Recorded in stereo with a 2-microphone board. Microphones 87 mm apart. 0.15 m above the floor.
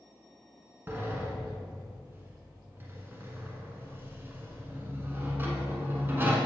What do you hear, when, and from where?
0.9 s a sliding door: 25° right (ahead or behind), 1.3 m